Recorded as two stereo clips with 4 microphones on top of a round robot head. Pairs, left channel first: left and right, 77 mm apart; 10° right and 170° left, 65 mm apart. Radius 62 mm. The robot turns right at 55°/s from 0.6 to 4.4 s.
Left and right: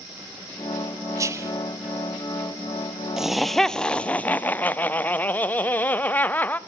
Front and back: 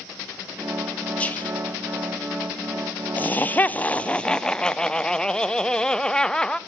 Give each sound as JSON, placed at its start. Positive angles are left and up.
{"t": 1.2, "sound": "whispering", "azimuth_deg": -75, "distance_m": 1.1}
{"t": 3.2, "sound": "laughter", "azimuth_deg": -15, "distance_m": 0.5}